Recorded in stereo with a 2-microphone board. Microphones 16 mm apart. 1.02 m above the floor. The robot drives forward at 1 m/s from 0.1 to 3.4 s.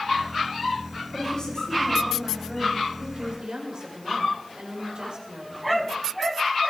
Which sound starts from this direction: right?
A woman speaking, at 3.1 s.